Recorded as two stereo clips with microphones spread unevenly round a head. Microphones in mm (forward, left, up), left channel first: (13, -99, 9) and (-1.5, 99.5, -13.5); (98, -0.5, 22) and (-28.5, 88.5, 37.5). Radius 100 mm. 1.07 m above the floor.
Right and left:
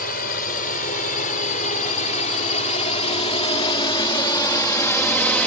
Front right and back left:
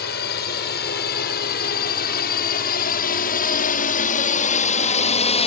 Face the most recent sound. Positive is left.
turn(degrees=0)